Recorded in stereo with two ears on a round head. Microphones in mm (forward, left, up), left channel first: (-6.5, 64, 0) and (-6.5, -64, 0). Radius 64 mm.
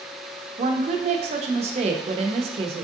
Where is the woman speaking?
45° right (ahead or behind), 0.6 m.